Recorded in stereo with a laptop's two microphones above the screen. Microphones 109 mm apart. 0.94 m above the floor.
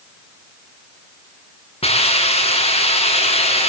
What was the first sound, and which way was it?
A hiss, 55° left (ahead or behind).